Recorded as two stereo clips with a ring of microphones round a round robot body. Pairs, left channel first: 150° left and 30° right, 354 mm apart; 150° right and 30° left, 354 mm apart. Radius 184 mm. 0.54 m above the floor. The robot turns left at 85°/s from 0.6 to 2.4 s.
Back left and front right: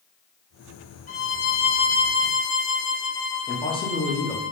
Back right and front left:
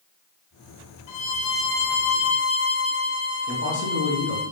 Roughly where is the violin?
Behind right.